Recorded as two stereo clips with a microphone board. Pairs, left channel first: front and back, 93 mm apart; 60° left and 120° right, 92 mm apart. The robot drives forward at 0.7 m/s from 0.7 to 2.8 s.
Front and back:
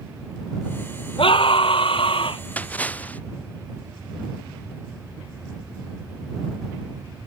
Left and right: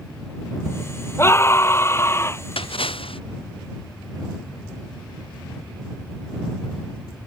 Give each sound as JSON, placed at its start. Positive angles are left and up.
{"t": 1.2, "sound": "a scream", "azimuth_deg": 0}
{"t": 2.6, "sound": "a splash", "azimuth_deg": 75}